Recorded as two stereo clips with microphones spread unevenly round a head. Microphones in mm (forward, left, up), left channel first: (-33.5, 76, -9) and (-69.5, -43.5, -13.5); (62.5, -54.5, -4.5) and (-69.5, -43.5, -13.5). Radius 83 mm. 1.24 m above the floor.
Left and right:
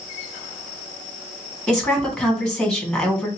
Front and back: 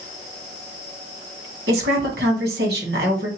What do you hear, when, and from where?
1.7 s a woman speaking: 160° left, 2.5 m